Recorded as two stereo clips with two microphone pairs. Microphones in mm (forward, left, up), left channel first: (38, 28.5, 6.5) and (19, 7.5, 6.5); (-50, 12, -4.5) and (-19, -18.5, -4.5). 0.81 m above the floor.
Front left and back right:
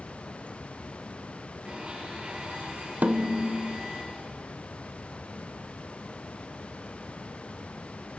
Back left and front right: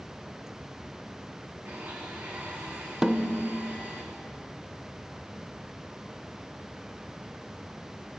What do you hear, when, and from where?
1.6 s a blender: 80° right, 9.5 m
3.0 s a snare drum: 120° right, 1.1 m